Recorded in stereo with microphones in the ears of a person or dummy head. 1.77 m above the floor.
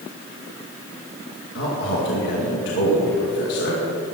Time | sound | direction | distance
1.6 | a man speaking | 65° left (ahead or behind) | 2 m